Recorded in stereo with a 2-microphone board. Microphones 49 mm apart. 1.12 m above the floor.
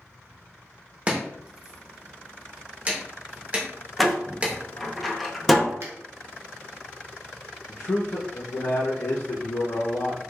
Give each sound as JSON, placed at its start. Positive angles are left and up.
{"t": 1.1, "sound": "chopping", "side_deg": -30, "distance_m": 0.8}
{"t": 4.0, "sound": "a door slam", "side_deg": 0, "distance_m": 0.6}
{"t": 5.8, "sound": "a finger snap", "side_deg": -60, "distance_m": 0.8}
{"t": 7.7, "sound": "a man speaking", "side_deg": 55, "distance_m": 0.6}